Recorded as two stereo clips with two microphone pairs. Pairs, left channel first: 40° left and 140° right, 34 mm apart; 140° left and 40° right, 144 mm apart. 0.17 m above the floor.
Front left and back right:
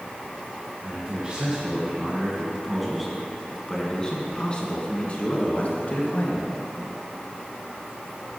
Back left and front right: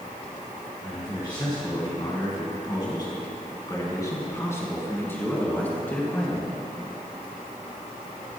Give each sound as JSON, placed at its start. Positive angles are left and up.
{"t": 0.8, "sound": "a man speaking", "azimuth_deg": 180, "distance_m": 2.0}